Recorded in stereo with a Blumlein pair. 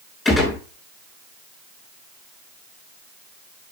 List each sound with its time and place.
0.2 s a gunshot: 20° left, 5.5 m